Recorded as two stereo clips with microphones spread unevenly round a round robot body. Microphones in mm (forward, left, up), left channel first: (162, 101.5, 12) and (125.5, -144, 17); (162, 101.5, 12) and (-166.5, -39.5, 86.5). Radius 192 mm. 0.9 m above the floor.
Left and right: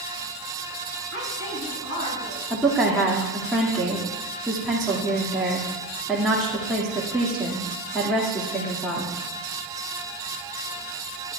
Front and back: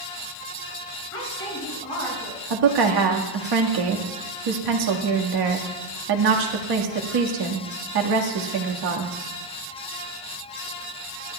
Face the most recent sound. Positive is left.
turn(degrees=170)